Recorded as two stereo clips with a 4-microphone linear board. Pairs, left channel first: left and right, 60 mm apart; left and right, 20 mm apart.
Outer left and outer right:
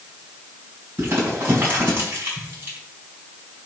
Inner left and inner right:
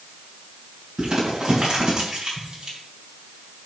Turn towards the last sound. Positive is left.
turn(degrees=-35)  # may be behind; listen again after turning